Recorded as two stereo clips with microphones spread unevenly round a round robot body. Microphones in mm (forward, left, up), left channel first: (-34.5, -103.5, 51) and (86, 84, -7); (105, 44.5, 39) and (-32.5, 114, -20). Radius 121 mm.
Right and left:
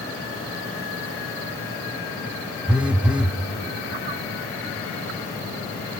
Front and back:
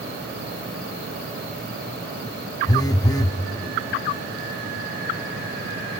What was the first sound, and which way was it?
A phone buzzing, 60° left.